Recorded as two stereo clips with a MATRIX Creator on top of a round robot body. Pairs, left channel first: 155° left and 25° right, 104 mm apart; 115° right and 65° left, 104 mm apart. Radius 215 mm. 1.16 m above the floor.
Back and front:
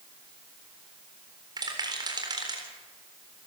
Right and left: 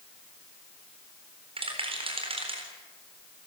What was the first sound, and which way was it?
A rattle, 30° left.